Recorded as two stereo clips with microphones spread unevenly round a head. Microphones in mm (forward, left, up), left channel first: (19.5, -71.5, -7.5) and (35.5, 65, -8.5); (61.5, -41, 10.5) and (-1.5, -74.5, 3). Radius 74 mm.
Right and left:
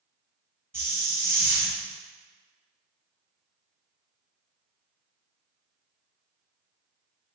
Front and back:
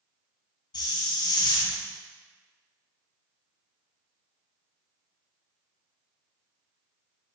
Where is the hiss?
10° left, 1.1 m.